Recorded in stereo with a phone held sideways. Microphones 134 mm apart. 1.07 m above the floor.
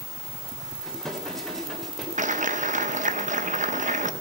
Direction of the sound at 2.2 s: 65° right (ahead or behind).